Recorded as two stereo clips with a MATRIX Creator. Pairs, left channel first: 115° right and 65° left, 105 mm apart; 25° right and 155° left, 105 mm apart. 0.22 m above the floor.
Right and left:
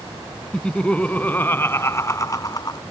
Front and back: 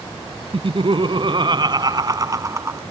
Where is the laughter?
165° left; by 2.8 s 145° right.